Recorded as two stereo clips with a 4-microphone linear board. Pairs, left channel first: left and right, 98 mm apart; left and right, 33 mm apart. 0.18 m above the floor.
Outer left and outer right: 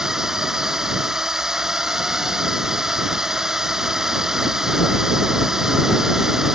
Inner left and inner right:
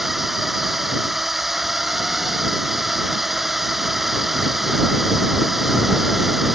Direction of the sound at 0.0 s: 5° right (ahead or behind).